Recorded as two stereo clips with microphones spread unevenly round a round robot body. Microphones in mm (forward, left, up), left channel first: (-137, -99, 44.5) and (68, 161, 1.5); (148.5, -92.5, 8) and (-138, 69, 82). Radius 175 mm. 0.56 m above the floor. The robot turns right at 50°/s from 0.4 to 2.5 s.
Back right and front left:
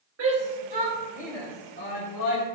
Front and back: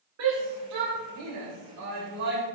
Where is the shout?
100° left, 3.5 m; by 2.4 s 160° right, 3.5 m.